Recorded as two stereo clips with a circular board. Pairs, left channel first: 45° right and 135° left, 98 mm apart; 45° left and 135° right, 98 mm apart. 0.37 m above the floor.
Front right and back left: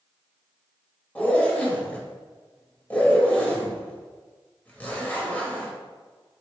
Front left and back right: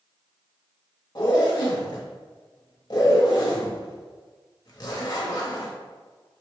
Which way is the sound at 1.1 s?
25° left.